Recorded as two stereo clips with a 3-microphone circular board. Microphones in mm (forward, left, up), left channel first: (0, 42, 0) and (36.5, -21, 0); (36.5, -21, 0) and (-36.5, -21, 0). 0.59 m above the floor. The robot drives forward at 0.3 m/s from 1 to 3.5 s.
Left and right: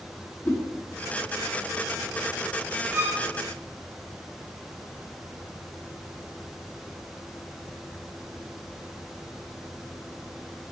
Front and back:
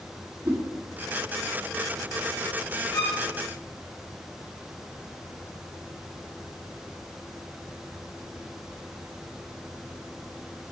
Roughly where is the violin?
Ahead.